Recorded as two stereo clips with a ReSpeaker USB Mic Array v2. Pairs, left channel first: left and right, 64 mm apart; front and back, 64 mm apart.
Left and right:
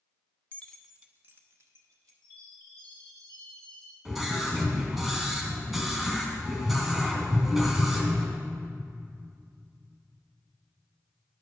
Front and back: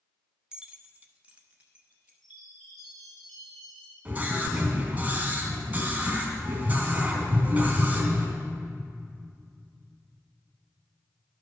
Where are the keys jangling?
110° left, 0.9 m; by 2.1 s 110° right, 2 m.